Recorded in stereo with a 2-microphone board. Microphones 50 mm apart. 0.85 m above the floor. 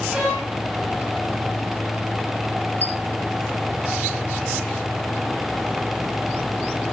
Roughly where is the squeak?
Right.